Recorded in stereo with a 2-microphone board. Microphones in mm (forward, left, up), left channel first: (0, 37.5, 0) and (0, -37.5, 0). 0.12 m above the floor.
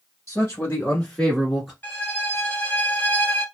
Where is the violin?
30° left (ahead or behind), 1.0 m.